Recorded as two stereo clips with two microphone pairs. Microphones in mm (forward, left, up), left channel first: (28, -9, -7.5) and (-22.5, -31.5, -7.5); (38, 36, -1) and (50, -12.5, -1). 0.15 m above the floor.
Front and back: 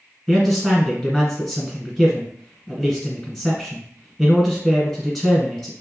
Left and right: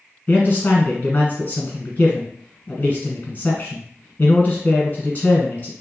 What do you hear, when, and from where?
0.3 s a man speaking: 110° left, 1.3 m